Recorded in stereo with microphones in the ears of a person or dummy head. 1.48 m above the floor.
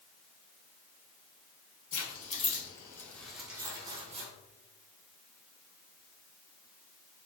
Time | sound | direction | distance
1.9 | keys jangling | 50° left (ahead or behind) | 1.3 m